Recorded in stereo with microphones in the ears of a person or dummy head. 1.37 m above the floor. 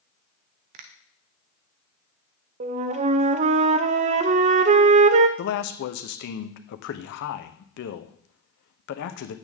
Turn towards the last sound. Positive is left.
turn(degrees=50)  # may be behind; listen again after turning